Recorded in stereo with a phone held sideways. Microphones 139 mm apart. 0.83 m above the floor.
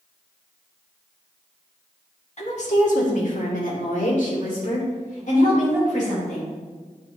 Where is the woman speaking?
55° left (ahead or behind), 1.6 m; by 6.5 s 65° left (ahead or behind), 4.5 m.